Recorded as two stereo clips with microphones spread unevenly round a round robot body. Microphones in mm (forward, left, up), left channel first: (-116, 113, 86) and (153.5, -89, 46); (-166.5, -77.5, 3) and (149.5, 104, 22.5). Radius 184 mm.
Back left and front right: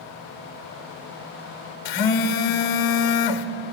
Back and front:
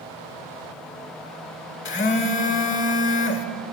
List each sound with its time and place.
1.9 s a phone buzzing: 155° left, 1.0 m